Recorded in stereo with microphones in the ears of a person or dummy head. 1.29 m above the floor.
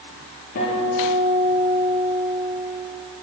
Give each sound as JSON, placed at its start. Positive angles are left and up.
{"t": 0.6, "sound": "a guitar", "side_deg": 60, "distance_m": 9.5}